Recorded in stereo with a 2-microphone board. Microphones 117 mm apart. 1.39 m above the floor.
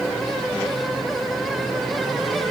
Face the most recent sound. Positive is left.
No sound to turn to.